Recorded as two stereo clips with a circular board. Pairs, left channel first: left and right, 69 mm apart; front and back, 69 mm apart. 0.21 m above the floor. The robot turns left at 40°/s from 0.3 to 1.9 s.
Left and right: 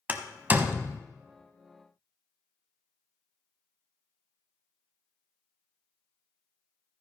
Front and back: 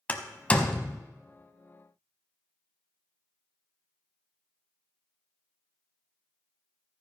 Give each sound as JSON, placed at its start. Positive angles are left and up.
{"t": 0.1, "sound": "a door slam", "azimuth_deg": -50, "distance_m": 0.8}